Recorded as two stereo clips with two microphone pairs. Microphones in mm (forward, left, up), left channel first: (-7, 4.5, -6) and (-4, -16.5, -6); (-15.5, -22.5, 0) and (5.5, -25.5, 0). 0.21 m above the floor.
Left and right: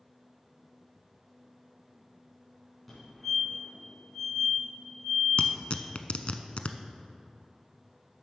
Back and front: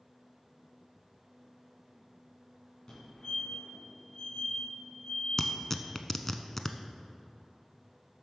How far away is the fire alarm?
About 3.5 m.